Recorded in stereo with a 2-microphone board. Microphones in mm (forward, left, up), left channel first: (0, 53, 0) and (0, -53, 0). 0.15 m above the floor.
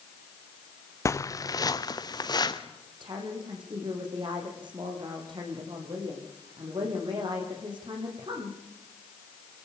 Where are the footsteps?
30° left (ahead or behind), 0.7 m; by 2.6 s 40° left (ahead or behind), 2.5 m.